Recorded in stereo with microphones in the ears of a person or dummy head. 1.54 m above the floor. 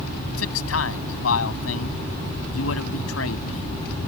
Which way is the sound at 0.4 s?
85° left.